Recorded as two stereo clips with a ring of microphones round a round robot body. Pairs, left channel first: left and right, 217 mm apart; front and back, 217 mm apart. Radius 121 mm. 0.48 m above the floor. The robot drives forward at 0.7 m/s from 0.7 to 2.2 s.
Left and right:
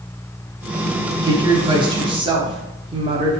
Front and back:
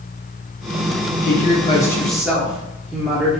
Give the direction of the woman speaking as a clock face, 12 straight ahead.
1 o'clock.